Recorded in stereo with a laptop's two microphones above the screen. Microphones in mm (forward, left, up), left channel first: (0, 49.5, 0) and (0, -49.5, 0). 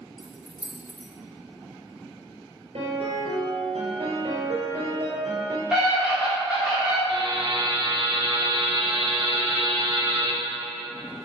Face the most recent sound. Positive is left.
turn(degrees=-50)  # may be behind; listen again after turning